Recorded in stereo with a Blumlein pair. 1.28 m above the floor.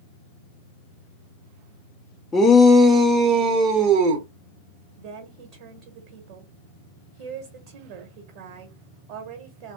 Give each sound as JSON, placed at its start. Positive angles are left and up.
{"t": 2.3, "sound": "a shout", "azimuth_deg": 15, "distance_m": 0.5}
{"t": 5.0, "sound": "a woman speaking", "azimuth_deg": -45, "distance_m": 1.3}